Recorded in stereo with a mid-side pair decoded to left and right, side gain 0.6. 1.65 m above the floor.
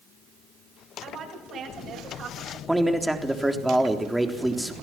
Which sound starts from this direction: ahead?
A man speaking, at 2.7 s.